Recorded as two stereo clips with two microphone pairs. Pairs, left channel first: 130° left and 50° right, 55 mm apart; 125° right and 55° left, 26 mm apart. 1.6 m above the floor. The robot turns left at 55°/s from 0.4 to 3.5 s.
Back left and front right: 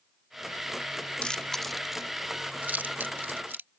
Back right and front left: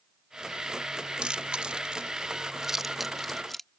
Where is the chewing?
70° left; by 3.7 s 60° right.